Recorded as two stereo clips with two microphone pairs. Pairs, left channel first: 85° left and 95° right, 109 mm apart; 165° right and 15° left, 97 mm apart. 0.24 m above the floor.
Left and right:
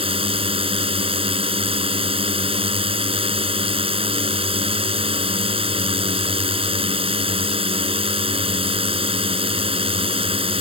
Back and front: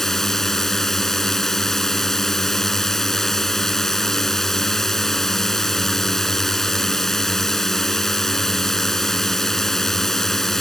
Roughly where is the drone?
Right.